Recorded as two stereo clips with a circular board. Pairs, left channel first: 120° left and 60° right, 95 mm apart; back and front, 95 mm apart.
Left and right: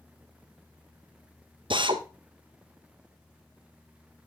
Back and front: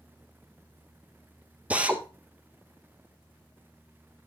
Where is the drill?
75° right, 1.0 m.